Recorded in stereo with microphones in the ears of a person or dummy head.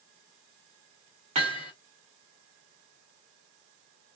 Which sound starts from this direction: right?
Hammering, at 1.4 s.